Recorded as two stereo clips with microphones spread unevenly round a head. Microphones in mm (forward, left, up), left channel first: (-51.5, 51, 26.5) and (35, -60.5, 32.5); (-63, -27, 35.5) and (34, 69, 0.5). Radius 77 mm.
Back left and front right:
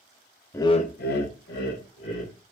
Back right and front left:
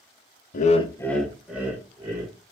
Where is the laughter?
155° right, 0.6 m; by 2.3 s 115° left, 2 m.